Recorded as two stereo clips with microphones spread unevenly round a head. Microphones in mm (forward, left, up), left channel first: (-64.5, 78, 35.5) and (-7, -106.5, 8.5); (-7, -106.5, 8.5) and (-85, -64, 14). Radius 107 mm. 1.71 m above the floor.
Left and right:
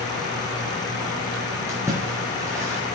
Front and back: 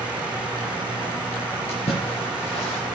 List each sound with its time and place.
1.7 s a splash: 10° left, 5 m